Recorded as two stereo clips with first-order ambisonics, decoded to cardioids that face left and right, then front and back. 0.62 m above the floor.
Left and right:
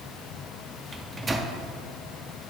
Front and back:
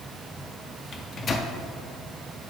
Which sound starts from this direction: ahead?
A microwave, at 0.9 s.